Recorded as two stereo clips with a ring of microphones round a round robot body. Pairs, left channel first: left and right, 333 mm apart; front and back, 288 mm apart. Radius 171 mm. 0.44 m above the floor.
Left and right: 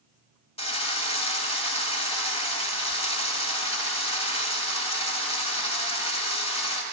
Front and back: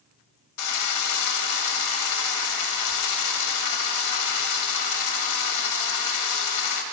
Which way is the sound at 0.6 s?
15° left.